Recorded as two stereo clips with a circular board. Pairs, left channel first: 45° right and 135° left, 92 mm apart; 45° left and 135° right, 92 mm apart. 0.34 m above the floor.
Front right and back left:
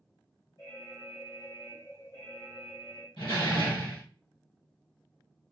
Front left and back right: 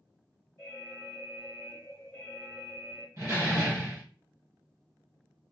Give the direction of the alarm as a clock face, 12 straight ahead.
1 o'clock.